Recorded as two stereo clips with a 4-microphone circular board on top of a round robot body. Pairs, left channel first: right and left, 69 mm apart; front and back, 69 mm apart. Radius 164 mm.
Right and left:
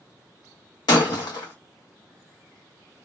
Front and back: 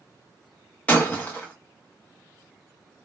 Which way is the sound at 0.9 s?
70° right.